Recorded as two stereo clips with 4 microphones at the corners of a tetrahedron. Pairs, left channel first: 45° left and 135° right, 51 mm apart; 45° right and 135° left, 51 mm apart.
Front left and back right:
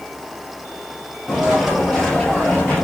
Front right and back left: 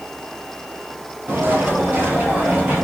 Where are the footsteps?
145° left, 1.8 m; by 2.8 s 85° left, 1.8 m.